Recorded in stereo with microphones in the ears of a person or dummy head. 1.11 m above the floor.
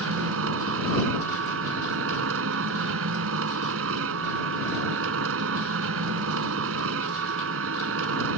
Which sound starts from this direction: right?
A machine running, at 0.0 s.